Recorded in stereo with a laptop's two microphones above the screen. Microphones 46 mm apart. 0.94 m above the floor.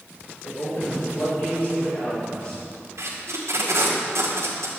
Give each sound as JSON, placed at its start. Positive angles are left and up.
{"t": 0.4, "sound": "a man speaking", "side_deg": 55, "distance_m": 3.0}
{"t": 3.0, "sound": "tape being pulled", "side_deg": -80, "distance_m": 2.0}